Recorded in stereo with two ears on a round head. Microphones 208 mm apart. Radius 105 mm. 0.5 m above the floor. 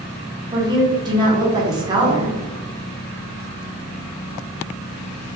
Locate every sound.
0.5 s a woman speaking: 20° right (ahead or behind), 0.9 m